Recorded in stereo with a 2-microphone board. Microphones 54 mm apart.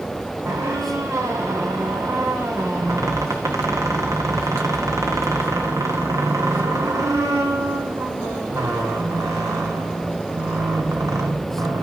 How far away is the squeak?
About 2.0 m.